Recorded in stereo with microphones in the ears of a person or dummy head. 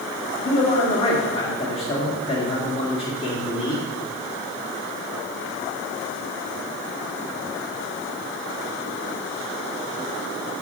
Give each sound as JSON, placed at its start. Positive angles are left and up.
{"t": 0.5, "sound": "a man speaking", "side_deg": 25, "distance_m": 2.5}